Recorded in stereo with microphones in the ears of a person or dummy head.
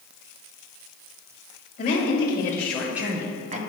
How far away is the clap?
No clap in this recording.